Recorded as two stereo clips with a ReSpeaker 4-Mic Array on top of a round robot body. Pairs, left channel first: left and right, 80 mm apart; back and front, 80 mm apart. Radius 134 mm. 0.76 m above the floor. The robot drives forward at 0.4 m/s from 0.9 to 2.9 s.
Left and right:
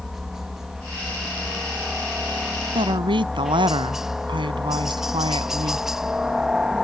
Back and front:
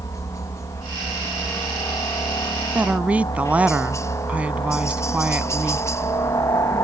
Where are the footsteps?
I don't hear footsteps.